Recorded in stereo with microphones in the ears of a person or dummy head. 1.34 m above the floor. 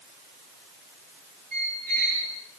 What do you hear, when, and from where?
1.5 s a squeak: 50° right (ahead or behind), 9 m